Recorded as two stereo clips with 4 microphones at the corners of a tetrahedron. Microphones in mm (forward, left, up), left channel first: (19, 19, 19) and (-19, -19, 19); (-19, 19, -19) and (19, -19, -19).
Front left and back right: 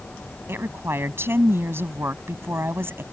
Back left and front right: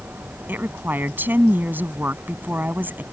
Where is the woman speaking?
95° right.